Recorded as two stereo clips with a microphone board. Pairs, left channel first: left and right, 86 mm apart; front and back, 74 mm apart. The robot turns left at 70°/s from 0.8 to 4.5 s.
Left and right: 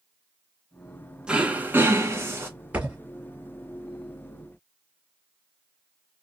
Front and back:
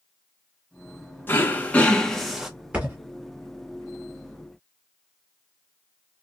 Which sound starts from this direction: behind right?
A thud, at 2.7 s.